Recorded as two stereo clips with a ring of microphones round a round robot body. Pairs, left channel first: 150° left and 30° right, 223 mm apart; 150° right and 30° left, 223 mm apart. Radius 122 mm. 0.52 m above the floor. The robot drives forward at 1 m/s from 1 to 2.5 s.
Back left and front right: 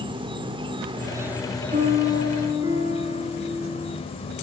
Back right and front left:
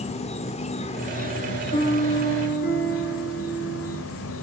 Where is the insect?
95° right, 1.2 m; by 4.4 s 145° right, 2.0 m.